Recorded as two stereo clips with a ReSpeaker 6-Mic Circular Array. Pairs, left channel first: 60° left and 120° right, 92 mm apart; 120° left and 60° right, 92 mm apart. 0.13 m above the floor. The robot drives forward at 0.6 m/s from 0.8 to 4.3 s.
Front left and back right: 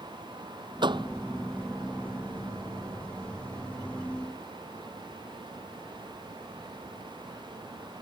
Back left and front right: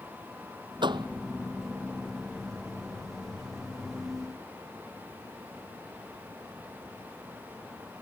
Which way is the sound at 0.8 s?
90° right.